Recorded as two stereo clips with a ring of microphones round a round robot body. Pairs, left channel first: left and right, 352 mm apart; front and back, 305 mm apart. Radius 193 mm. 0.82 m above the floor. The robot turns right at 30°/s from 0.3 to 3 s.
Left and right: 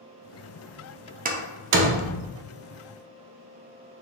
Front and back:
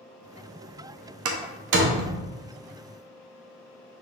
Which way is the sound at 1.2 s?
155° right.